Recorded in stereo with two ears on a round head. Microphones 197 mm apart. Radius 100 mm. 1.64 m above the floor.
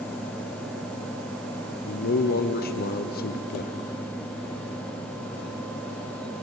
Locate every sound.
1.9 s a man speaking: 45° left (ahead or behind), 0.9 m